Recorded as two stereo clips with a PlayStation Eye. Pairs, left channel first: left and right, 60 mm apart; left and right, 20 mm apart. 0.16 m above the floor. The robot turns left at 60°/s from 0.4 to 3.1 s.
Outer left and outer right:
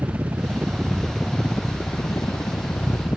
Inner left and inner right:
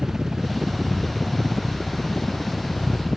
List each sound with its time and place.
0.0 s a helicopter: 35° right (ahead or behind); by 3.2 s 50° left (ahead or behind)